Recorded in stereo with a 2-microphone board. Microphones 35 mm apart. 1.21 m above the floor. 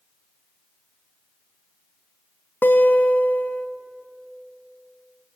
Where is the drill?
No drill in this recording.